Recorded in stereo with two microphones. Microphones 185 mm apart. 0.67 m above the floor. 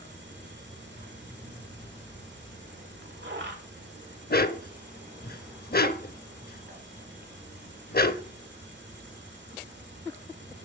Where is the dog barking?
55° left (ahead or behind), 0.6 m.